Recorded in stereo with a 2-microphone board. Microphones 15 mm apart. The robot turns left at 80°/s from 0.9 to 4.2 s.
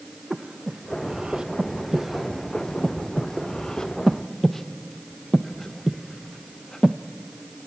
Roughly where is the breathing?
Right.